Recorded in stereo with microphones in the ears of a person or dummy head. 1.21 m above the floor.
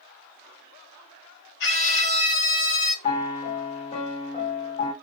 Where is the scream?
55° left (ahead or behind), 1.2 m.